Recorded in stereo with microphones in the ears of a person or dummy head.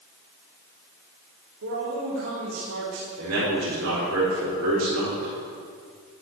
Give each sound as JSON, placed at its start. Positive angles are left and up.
{"t": 1.6, "sound": "a man speaking", "side_deg": -85, "distance_m": 3.0}
{"t": 3.2, "sound": "a man speaking", "side_deg": -85, "distance_m": 5.0}